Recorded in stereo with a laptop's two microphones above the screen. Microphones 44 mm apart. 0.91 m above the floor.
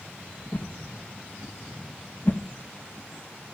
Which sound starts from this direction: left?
A whoosh, at 0.5 s.